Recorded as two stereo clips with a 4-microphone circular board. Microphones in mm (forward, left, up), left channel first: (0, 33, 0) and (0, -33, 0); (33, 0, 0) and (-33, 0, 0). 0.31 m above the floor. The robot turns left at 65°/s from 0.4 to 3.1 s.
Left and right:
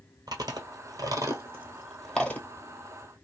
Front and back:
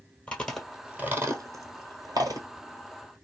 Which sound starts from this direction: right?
Chewing, at 0.3 s.